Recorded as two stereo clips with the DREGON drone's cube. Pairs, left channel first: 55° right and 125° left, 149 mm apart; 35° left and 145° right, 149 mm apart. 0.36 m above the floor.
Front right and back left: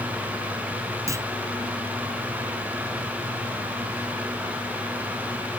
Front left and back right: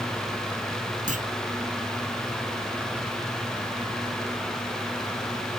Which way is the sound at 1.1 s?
170° right.